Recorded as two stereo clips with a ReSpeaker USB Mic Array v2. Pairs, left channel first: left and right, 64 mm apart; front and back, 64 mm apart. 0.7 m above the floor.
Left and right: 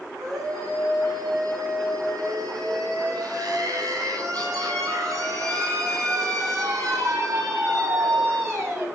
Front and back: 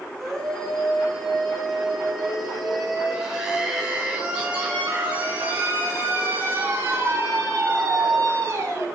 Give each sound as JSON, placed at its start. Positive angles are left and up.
{"t": 0.2, "sound": "a scream", "azimuth_deg": -85, "distance_m": 7.5}